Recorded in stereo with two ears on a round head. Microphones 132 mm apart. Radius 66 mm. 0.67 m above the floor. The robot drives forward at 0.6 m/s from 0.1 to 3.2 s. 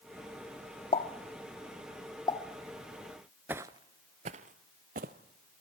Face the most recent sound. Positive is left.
turn(degrees=-60)  # may be behind; listen again after turning